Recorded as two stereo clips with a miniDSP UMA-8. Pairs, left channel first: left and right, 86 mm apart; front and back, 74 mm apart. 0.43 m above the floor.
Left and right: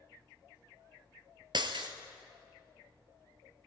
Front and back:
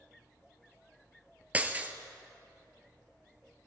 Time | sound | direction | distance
1.5 | breaking glass | 110° right | 1.1 m